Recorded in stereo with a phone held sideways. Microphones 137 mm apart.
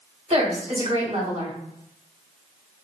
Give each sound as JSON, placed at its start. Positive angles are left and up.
{"t": 0.3, "sound": "a woman speaking", "side_deg": -50, "distance_m": 1.8}